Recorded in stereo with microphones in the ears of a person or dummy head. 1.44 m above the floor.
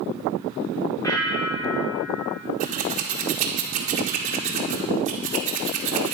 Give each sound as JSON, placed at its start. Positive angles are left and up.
{"t": 1.0, "sound": "a bell", "side_deg": 25, "distance_m": 1.4}
{"t": 2.6, "sound": "scissors", "side_deg": -35, "distance_m": 0.9}